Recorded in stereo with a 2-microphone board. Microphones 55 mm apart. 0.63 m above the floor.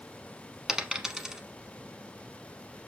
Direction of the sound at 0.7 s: 10° right (ahead or behind).